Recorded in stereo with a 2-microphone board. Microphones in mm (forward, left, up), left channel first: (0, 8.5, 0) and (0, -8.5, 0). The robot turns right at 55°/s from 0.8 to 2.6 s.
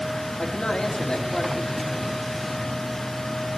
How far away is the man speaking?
About 3 m.